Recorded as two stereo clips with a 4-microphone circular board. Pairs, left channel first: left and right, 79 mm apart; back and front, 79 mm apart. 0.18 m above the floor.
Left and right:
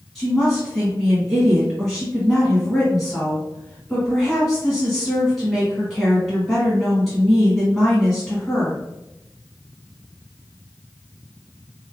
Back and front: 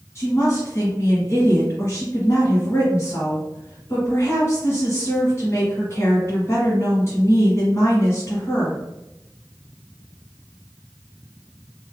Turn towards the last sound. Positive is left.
turn(degrees=175)